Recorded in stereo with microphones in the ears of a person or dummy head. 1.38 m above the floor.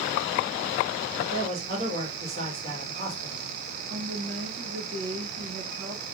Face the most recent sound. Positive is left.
turn(degrees=-70)  # may be behind; listen again after turning